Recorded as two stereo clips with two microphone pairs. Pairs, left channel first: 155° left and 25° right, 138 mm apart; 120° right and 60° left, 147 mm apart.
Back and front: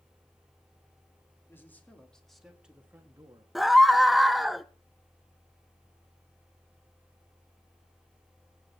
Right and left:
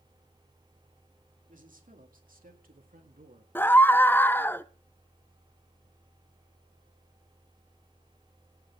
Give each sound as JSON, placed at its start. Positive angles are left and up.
{"t": 1.5, "sound": "a man speaking", "azimuth_deg": 80, "distance_m": 2.5}
{"t": 3.5, "sound": "a scream", "azimuth_deg": -100, "distance_m": 0.7}